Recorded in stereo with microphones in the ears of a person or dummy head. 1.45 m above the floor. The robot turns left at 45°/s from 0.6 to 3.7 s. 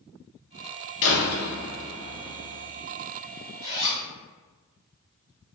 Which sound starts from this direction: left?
A door slam, at 1.0 s.